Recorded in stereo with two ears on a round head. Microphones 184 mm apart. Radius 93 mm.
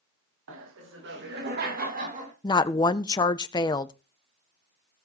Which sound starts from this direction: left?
A woman speaking, at 2.4 s.